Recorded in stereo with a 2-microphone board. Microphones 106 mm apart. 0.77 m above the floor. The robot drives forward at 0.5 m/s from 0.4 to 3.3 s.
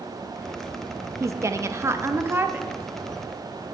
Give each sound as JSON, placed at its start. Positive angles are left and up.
{"t": 1.2, "sound": "a woman speaking", "side_deg": -30, "distance_m": 0.5}